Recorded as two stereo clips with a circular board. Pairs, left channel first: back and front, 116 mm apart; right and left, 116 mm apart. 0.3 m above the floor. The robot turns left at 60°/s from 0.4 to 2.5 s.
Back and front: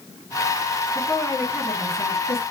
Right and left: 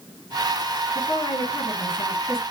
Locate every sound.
0.9 s a woman speaking: 100° right, 3.5 m; by 2.4 s 175° left, 3.5 m